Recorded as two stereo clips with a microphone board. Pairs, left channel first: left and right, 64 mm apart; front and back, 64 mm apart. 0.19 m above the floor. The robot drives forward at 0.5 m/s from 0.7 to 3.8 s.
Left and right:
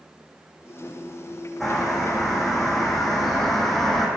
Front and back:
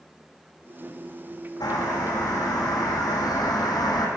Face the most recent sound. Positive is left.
turn(degrees=5)